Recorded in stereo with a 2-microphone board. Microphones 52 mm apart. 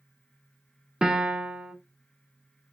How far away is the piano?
About 0.5 m.